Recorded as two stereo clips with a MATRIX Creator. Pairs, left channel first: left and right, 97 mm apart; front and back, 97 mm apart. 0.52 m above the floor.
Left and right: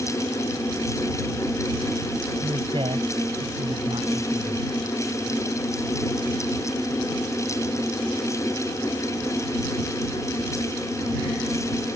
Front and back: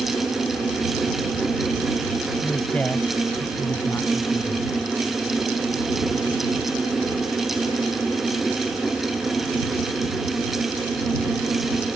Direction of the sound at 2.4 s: 80° right.